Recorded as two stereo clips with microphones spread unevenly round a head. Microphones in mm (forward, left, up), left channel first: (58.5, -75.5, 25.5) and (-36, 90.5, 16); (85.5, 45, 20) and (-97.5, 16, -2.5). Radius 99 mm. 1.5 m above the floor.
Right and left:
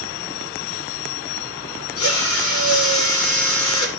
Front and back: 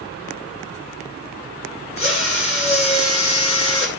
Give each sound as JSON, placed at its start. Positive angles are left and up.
{"t": 2.0, "sound": "a drill", "azimuth_deg": -55, "distance_m": 6.5}